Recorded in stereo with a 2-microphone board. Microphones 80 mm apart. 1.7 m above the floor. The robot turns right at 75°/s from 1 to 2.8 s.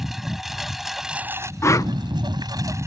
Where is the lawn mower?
175° right; by 2.9 s 40° right.